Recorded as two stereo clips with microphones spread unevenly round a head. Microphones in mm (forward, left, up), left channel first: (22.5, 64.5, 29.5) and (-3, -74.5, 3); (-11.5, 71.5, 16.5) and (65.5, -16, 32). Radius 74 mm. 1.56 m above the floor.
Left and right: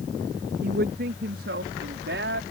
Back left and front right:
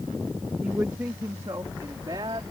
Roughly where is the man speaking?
Behind right.